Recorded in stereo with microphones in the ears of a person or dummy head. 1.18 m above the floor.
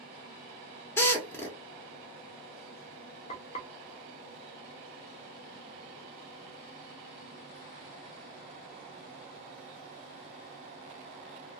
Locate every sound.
1.0 s a drill: 15° left (ahead or behind), 0.8 m
3.3 s frying: 30° left (ahead or behind), 0.5 m